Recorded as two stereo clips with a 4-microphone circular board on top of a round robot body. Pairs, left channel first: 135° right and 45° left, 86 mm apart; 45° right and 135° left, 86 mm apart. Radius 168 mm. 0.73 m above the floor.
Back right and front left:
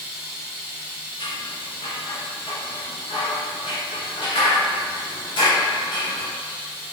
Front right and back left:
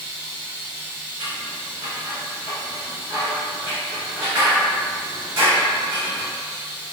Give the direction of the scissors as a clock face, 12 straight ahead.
6 o'clock.